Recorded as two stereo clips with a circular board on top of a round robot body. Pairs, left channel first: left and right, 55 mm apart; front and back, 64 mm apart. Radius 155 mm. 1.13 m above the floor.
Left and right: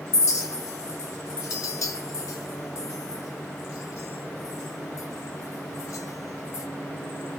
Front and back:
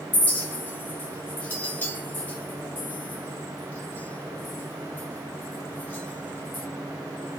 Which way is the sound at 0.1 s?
60° left.